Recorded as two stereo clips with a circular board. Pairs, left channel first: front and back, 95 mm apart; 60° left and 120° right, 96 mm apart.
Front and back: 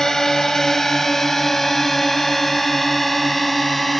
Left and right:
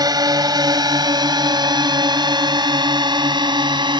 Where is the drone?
85° right; by 4.0 s 90° right.